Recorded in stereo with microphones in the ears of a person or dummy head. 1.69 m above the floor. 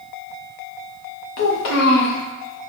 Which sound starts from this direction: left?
A child speaking, at 1.4 s.